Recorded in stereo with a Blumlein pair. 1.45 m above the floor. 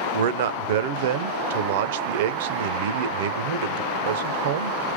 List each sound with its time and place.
0.1 s a man speaking: 55° right, 0.5 m